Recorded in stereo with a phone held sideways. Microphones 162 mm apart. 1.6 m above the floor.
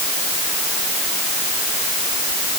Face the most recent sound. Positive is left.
No sound to turn to.